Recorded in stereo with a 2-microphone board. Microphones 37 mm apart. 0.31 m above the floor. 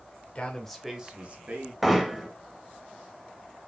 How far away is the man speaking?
About 1.0 m.